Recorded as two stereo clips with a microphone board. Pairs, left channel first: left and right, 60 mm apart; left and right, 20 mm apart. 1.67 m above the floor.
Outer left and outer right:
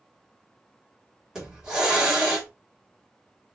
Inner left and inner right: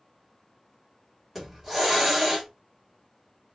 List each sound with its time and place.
1.4 s a hiss: 10° right (ahead or behind), 1.9 m